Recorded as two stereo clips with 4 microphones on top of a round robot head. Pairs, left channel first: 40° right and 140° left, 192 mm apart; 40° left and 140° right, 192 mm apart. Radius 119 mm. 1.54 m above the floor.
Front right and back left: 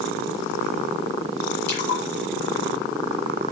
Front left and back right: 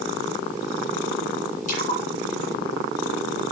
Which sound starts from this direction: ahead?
A splash, at 1.7 s.